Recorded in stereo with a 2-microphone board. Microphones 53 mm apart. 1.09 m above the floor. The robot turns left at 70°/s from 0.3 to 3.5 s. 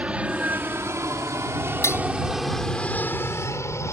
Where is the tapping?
60° left (ahead or behind); by 2.0 s 45° left (ahead or behind).